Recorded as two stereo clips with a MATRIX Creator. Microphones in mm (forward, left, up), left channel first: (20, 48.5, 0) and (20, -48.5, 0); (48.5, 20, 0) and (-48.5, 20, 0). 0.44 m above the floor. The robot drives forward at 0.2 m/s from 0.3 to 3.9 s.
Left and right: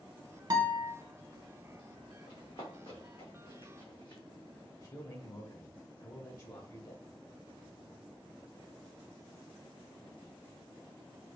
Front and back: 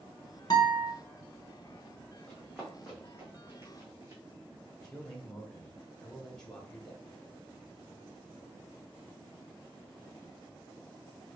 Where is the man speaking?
80° left, 1.3 m.